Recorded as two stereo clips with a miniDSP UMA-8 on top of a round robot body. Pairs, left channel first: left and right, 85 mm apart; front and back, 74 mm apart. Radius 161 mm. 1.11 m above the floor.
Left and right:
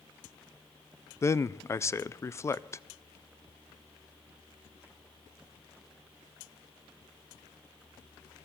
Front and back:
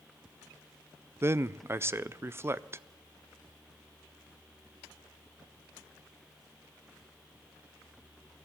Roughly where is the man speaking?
Behind left.